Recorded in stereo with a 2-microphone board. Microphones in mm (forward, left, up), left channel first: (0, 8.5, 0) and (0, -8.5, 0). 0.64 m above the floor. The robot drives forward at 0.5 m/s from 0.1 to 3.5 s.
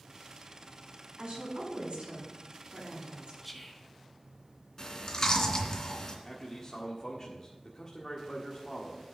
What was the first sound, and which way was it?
A woman speaking, 65° right (ahead or behind).